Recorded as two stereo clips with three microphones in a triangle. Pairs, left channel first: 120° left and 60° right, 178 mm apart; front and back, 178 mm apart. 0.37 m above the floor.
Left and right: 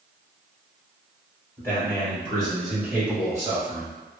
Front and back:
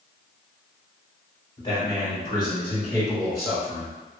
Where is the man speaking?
50° left, 1.9 m; by 3.9 s 80° right, 1.5 m.